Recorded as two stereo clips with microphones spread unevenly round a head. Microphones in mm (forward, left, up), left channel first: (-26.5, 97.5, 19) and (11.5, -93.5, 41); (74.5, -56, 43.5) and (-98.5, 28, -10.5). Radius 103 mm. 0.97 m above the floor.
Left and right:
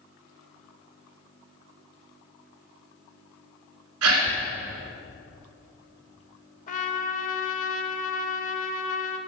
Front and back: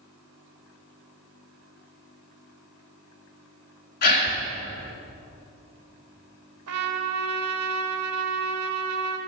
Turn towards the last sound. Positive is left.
turn(degrees=155)